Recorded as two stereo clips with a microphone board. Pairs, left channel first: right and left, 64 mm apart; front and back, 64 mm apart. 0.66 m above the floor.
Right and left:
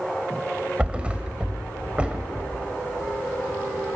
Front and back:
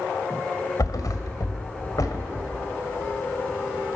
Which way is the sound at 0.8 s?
20° left.